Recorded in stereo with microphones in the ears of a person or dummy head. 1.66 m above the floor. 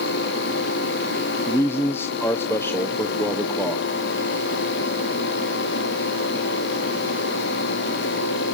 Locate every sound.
1.5 s a man speaking: 15° left (ahead or behind), 0.9 m